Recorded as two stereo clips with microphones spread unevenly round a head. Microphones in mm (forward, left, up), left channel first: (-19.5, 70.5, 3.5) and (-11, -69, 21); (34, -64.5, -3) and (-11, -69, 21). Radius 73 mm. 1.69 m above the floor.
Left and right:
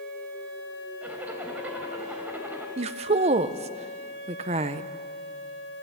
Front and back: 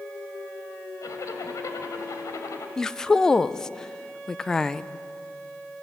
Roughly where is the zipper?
Ahead.